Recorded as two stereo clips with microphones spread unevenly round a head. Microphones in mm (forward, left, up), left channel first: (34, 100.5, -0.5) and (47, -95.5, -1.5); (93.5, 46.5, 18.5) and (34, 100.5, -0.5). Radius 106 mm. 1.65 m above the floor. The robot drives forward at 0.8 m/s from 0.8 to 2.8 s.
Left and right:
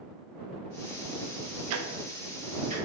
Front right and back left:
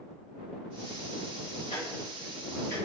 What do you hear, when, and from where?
1.7 s ticking: 95° right, 0.5 m; by 2.8 s 150° right, 1.0 m